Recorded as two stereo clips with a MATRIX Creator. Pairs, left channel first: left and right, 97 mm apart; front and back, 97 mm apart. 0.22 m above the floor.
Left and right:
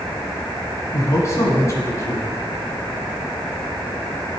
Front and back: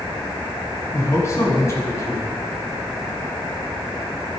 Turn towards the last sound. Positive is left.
turn(degrees=45)